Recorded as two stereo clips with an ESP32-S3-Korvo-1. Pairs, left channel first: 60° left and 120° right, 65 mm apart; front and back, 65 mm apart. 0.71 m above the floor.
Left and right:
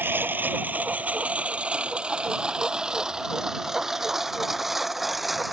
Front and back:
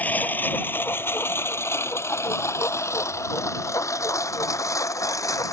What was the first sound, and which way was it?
A lawn mower, 65° right.